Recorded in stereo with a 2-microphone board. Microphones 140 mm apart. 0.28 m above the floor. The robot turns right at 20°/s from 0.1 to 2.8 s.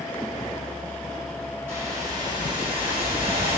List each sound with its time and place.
1.7 s a whoosh: 15° right (ahead or behind), 1.8 m; by 3.6 s 40° right (ahead or behind), 1.8 m